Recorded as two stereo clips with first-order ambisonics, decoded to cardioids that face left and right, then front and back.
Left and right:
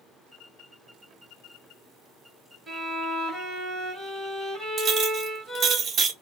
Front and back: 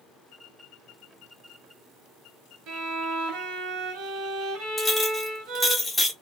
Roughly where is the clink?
Right.